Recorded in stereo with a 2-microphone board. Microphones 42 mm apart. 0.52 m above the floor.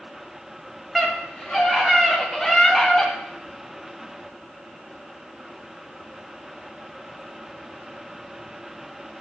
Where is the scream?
5° right (ahead or behind), 2.5 m; by 3.1 s 5° left (ahead or behind), 1.3 m.